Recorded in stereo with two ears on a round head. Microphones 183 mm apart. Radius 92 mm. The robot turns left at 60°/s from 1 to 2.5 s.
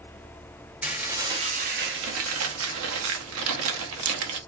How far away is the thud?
No thud in this recording.